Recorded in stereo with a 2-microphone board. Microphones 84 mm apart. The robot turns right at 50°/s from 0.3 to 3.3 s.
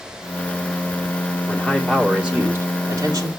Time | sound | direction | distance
1.5 | a man speaking | 155° left | 2.5 m